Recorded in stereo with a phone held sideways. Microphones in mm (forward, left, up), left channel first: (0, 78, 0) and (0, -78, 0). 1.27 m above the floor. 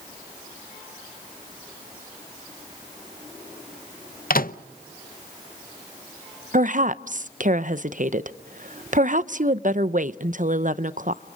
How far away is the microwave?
About 0.6 m.